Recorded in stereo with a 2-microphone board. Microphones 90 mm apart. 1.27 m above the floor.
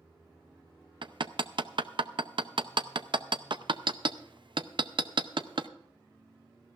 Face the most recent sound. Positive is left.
turn(degrees=-60)  # may be behind; listen again after turning